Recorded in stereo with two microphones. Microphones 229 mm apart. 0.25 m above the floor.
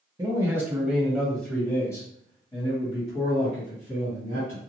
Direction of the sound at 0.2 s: 15° right (ahead or behind).